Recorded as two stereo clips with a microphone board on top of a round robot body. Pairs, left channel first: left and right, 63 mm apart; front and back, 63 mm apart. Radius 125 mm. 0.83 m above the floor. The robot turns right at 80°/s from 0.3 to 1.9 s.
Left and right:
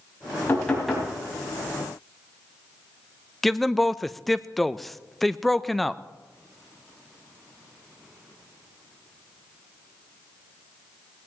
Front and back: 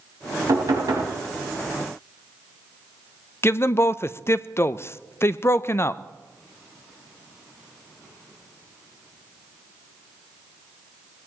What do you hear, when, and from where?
0.5 s knocking: 150° left, 4.5 m; by 1.1 s 160° right, 4.5 m
3.4 s a man speaking: 5° left, 0.6 m